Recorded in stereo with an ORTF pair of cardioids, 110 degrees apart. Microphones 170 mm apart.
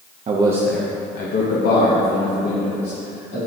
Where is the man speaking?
40° right, 0.9 m; by 3.4 s 75° left, 4 m.